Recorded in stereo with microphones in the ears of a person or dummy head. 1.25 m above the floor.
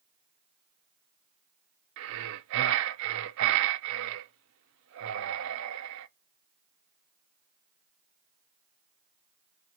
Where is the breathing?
65° right (ahead or behind), 0.6 m.